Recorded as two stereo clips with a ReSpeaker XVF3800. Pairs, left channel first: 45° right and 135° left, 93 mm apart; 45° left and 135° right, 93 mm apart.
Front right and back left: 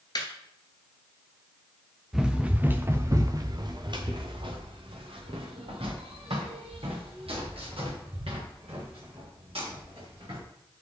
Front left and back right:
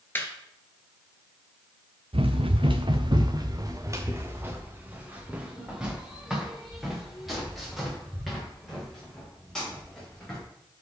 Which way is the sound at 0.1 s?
20° right.